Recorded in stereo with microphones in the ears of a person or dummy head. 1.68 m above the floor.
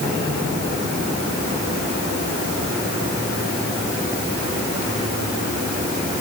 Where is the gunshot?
No gunshot in this recording.